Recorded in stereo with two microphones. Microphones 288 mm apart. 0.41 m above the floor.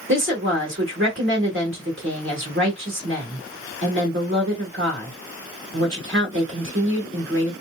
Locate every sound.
0.1 s a woman speaking: 45° right (ahead or behind), 1.7 m